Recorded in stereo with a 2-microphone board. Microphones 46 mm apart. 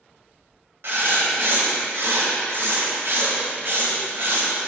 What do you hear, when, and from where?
0.8 s writing: 55° right (ahead or behind), 1.2 m